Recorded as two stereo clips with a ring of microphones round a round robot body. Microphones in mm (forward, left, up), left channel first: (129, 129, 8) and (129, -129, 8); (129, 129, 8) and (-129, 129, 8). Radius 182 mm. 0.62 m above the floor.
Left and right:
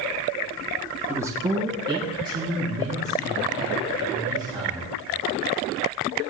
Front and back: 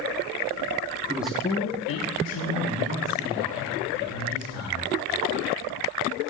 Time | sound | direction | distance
1.1 | a man speaking | 160° right | 0.5 m